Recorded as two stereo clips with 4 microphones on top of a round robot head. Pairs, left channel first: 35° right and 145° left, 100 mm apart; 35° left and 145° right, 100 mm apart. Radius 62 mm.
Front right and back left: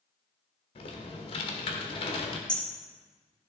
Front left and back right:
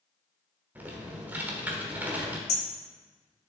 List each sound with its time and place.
0.8 s typing on a keyboard: 70° right, 1.3 m
2.5 s hammering: 45° left, 2 m